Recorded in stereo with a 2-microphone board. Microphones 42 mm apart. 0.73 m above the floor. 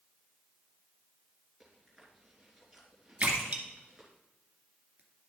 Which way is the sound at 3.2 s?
30° right (ahead or behind).